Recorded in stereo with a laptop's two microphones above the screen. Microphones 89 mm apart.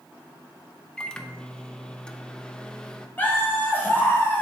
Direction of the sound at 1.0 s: 10° left (ahead or behind).